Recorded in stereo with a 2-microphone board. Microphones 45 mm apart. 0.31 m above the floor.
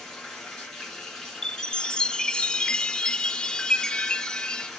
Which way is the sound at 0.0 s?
10° left (ahead or behind).